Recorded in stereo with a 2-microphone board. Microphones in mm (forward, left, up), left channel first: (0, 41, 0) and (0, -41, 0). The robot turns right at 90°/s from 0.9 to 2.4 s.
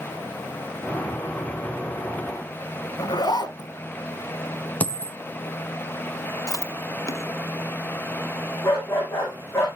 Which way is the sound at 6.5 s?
45° left (ahead or behind).